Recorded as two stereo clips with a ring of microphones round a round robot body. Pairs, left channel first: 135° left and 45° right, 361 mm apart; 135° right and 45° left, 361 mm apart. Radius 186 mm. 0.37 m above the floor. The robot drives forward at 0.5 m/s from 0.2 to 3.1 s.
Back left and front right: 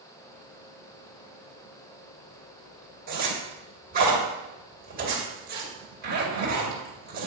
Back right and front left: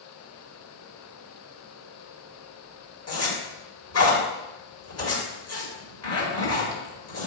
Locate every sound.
3.1 s a zipper: 100° right, 2 m